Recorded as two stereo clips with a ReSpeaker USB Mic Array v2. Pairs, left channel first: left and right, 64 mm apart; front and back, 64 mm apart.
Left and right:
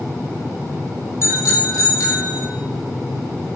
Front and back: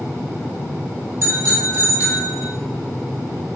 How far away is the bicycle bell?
About 3.5 m.